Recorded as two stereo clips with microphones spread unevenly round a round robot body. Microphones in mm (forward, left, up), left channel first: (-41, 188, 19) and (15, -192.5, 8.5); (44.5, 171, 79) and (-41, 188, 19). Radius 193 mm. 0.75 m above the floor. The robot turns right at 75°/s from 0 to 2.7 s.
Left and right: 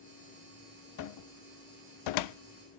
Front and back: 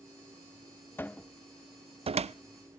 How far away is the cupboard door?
About 0.6 m.